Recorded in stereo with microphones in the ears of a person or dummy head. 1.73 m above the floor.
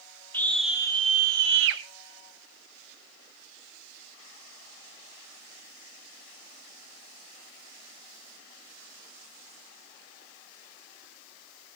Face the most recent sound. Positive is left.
turn(degrees=-75)  # may be behind; listen again after turning